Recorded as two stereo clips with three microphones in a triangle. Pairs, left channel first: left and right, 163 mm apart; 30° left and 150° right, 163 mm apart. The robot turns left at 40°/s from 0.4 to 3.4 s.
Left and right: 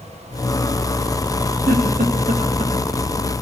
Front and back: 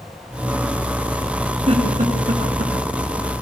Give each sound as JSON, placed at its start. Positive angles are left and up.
{"t": 1.7, "sound": "a giggle", "azimuth_deg": -105, "distance_m": 4.0}